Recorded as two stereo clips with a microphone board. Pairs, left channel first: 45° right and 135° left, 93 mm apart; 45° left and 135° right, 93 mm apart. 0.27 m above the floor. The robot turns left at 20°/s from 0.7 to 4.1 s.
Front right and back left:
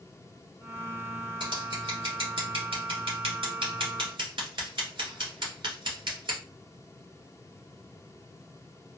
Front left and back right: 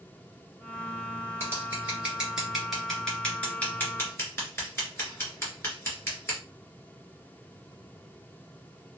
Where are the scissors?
160° left, 1.9 m; by 6.4 s 105° left, 1.9 m.